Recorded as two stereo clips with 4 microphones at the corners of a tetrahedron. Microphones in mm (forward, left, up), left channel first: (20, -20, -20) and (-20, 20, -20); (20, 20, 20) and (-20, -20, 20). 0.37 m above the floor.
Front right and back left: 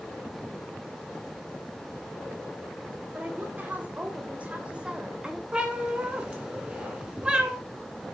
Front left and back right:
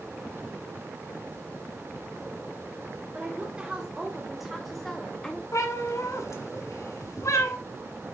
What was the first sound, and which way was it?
A woman speaking, 170° left.